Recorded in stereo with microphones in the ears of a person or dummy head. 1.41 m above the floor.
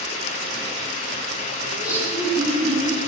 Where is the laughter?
10° right (ahead or behind), 9 m; by 3.0 s centre (ahead or behind), 9.5 m.